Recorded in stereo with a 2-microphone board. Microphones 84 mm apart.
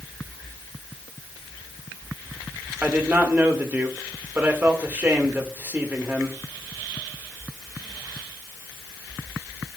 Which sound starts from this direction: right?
A man speaking, at 2.8 s.